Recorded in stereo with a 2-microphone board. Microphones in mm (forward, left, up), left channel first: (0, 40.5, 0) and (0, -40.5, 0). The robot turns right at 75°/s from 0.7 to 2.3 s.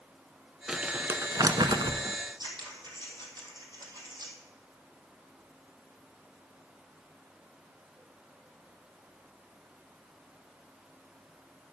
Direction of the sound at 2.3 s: 65° right (ahead or behind).